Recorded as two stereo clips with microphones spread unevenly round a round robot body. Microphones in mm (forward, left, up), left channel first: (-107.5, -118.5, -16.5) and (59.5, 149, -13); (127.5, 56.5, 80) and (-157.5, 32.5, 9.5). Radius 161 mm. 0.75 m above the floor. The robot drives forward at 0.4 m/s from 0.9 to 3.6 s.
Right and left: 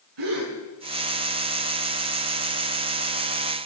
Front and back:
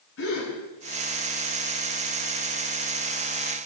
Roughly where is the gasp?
Ahead left.